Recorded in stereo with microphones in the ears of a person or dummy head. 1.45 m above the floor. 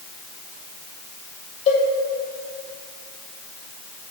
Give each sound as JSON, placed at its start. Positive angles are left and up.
{"t": 1.7, "sound": "a cowbell", "side_deg": 40, "distance_m": 2.5}